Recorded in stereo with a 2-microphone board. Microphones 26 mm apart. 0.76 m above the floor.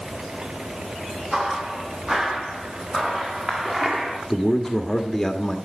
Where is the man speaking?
20° left (ahead or behind), 1.3 m.